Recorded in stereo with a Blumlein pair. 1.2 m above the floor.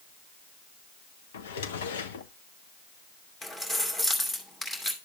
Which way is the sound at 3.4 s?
10° left.